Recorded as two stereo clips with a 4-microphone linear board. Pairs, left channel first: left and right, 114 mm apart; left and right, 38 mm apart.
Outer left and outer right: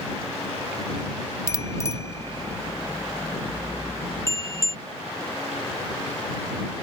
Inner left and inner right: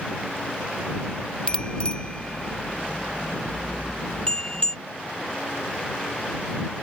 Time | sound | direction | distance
1.5 | a bicycle bell | 25° left (ahead or behind) | ?